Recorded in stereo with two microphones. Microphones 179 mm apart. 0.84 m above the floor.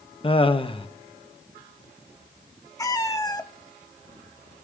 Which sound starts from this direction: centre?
A cat meowing, at 2.8 s.